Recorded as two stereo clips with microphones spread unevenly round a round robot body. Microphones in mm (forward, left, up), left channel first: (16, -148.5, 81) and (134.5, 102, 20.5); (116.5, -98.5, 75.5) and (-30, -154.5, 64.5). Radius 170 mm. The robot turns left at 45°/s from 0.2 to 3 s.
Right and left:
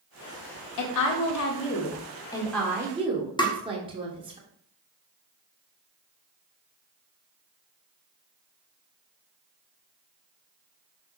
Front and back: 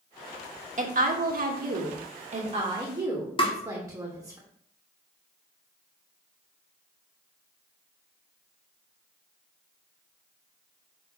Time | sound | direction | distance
0.8 | a woman speaking | 130° right | 1.7 m
3.4 | tapping | 35° right | 1.7 m